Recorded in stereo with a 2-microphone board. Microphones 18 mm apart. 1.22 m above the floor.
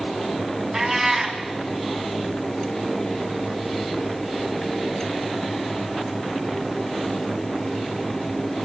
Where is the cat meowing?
35° right (ahead or behind), 2.5 m.